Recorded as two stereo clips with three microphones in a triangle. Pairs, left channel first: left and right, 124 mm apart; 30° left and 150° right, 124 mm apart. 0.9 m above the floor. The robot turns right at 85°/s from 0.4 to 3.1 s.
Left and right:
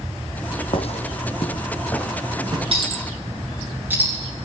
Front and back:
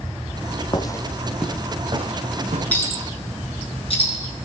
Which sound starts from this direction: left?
Footsteps, at 0.7 s.